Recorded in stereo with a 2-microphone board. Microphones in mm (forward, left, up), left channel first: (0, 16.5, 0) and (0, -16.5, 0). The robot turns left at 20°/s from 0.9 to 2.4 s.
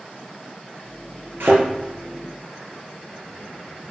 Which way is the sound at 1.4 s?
75° right (ahead or behind).